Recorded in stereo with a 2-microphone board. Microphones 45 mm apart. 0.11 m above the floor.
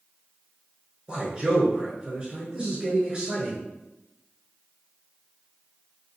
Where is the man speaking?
20° right (ahead or behind), 1.2 m.